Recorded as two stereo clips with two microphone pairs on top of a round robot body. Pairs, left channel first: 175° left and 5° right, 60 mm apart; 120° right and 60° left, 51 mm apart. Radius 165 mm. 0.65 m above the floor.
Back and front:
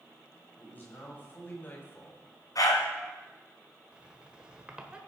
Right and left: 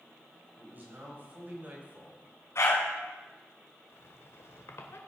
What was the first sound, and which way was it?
A man speaking, 115° left.